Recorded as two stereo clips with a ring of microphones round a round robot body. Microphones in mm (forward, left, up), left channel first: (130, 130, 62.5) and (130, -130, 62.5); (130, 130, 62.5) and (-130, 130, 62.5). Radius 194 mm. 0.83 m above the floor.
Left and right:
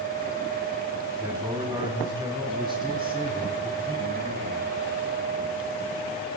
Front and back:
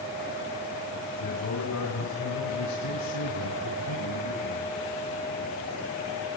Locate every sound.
1.2 s a man speaking: 5° right, 5 m; by 4.7 s 25° right, 6.5 m